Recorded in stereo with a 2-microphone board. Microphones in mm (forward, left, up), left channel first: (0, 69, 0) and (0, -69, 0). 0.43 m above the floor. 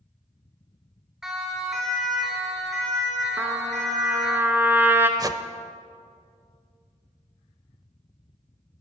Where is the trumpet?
15° right (ahead or behind), 1.2 m.